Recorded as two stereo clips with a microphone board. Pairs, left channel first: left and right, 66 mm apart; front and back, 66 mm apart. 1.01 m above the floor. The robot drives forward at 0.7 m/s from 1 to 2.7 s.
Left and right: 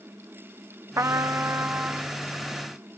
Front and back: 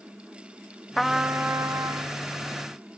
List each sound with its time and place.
1.0 s a trumpet: 90° right, 0.5 m; by 2.2 s 155° right, 1.0 m